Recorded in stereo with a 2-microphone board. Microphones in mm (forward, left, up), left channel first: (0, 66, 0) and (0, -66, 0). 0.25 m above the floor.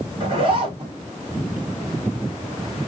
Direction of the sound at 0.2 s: 45° right (ahead or behind).